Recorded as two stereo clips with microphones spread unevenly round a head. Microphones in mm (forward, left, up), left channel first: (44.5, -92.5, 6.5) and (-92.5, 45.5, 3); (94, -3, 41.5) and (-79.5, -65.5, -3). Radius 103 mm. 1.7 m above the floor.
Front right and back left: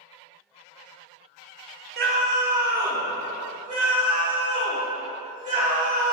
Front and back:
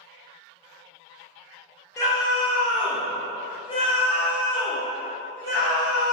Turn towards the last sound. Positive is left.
turn(degrees=75)